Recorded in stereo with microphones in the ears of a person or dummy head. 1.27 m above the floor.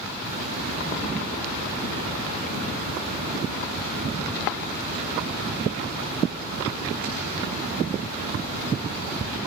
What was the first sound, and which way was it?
A hiss, 50° right (ahead or behind).